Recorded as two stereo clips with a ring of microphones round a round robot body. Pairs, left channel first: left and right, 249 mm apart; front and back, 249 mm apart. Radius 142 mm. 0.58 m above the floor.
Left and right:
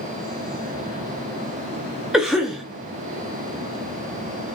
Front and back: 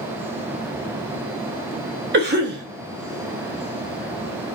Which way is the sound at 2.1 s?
175° right.